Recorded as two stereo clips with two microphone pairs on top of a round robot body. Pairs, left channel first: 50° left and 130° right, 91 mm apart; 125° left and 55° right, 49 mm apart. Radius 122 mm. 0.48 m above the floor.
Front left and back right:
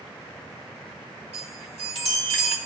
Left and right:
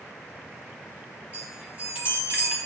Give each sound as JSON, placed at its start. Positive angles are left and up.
{"t": 1.3, "sound": "a chime", "azimuth_deg": -120, "distance_m": 2.5}